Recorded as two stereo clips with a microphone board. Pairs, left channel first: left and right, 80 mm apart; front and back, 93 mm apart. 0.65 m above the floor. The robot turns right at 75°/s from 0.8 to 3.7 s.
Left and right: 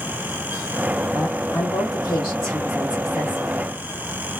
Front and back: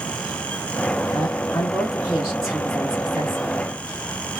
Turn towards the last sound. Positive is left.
turn(degrees=-140)